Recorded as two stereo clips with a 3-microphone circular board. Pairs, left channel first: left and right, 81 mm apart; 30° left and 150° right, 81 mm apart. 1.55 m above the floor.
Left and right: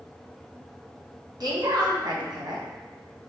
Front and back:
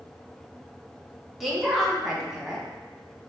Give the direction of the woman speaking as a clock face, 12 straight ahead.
2 o'clock.